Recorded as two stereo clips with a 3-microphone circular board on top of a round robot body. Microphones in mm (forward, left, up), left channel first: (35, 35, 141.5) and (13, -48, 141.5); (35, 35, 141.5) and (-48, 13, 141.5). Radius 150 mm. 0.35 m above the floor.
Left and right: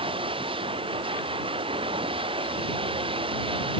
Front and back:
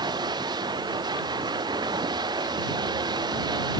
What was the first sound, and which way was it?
Running water, 125° right.